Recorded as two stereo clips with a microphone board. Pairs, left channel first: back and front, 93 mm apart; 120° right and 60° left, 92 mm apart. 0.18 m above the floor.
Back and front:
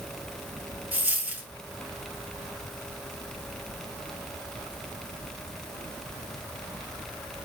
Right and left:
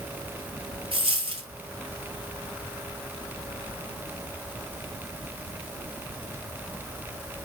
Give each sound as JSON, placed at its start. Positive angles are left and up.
{"t": 0.9, "sound": "a dropped coin", "azimuth_deg": 70, "distance_m": 0.8}